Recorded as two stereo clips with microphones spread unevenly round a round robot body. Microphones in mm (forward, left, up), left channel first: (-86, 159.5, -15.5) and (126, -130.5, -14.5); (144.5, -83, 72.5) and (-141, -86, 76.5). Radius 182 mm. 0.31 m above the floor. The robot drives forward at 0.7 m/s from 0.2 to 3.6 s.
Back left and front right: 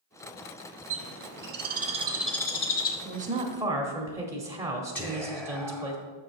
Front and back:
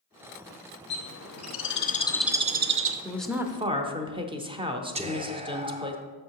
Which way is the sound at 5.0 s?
160° right.